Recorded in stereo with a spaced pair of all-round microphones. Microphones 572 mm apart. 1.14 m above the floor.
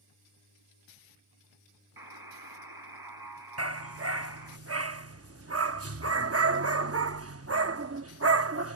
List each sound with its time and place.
2.0 s a buzzer: 40° right (ahead or behind)
3.6 s a dog barking: 25° right (ahead or behind)